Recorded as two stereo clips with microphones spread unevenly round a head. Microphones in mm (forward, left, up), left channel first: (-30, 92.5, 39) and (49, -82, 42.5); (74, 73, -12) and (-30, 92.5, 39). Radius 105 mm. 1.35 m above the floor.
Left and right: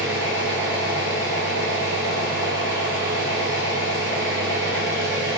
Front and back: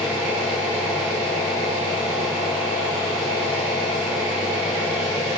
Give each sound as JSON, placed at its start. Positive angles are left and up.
{"t": 0.0, "sound": "an engine running", "azimuth_deg": -105, "distance_m": 0.7}